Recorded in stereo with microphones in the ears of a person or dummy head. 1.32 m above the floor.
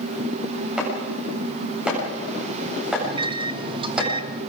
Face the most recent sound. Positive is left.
turn(degrees=-30)  # may be behind; listen again after turning